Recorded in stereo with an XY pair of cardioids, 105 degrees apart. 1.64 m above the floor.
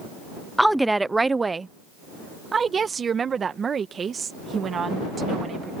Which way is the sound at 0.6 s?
Straight ahead.